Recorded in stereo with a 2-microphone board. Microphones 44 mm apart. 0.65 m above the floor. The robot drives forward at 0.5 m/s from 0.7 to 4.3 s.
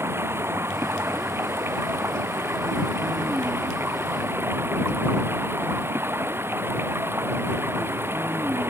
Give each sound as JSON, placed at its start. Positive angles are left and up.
{"t": 0.0, "sound": "running water", "side_deg": -80}